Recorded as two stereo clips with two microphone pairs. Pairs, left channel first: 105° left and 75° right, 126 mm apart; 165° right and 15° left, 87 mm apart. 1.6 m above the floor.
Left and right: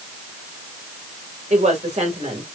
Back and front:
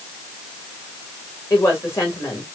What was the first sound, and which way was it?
A woman speaking, 105° right.